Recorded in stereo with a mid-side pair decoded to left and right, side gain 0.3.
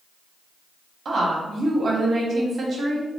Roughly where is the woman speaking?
Ahead right.